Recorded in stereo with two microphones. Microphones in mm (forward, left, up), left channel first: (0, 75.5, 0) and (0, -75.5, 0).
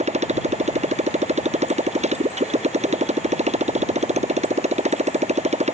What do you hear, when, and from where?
0.0 s a motorcycle: 45° right (ahead or behind)